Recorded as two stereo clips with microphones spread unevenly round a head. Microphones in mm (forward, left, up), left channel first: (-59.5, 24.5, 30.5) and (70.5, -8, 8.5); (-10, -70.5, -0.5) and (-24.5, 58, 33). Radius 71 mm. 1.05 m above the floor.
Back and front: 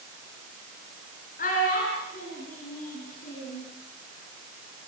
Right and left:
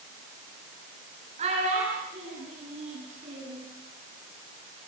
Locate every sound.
1.4 s a child speaking: 135° left, 7.5 m; by 3.6 s 130° left, 10 m